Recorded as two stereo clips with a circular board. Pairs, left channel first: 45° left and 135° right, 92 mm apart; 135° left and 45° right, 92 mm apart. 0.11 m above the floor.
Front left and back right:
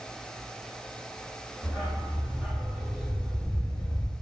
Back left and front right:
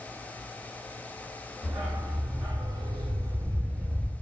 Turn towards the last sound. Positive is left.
turn(degrees=45)